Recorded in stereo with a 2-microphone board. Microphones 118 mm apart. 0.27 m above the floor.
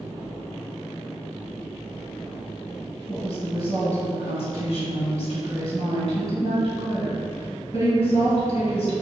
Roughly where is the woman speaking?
Left.